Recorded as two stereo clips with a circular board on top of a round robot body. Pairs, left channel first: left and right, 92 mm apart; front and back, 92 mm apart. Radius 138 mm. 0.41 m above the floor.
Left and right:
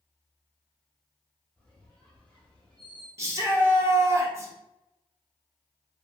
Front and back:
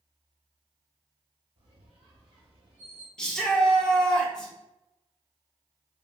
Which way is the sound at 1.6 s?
165° left.